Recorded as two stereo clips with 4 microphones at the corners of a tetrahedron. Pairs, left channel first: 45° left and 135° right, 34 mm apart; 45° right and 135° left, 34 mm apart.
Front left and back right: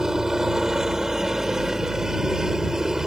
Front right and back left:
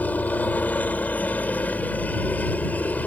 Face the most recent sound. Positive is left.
turn(degrees=-60)